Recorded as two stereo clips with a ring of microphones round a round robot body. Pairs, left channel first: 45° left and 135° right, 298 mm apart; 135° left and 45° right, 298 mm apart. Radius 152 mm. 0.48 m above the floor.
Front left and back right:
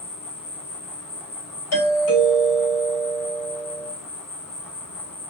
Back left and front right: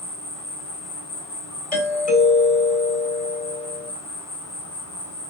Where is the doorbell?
75° left, 2.5 m.